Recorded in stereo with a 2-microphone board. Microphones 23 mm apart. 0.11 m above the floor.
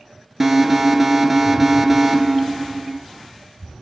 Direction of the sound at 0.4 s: 10° right (ahead or behind).